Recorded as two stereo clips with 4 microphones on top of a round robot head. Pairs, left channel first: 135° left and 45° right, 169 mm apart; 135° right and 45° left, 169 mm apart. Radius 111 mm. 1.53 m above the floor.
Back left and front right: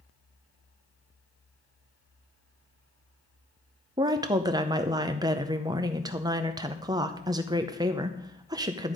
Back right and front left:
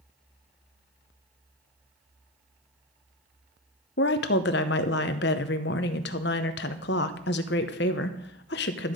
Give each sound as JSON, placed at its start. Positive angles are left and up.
{"t": 4.0, "sound": "a woman speaking", "azimuth_deg": -110, "distance_m": 0.7}